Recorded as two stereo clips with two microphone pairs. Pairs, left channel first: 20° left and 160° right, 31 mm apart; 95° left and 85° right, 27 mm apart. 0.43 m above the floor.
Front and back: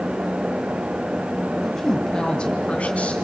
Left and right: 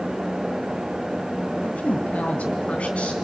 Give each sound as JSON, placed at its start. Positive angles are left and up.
{"t": 1.6, "sound": "a woman speaking", "azimuth_deg": 110, "distance_m": 2.5}